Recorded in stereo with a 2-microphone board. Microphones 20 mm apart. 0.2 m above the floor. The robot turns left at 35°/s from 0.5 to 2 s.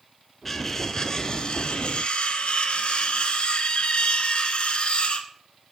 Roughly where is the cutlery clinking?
Behind.